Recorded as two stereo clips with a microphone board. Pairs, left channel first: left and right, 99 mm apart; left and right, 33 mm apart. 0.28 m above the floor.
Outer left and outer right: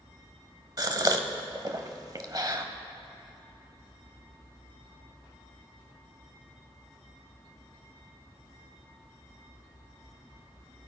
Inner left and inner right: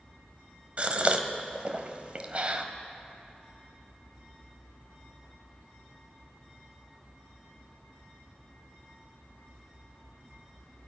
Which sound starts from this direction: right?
A gasp, at 0.8 s.